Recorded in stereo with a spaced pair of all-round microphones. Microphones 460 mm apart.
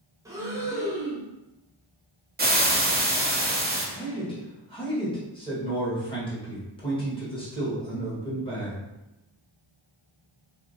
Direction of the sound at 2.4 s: 20° right (ahead or behind).